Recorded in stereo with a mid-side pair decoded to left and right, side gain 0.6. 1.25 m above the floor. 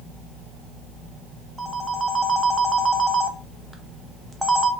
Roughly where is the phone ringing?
Ahead.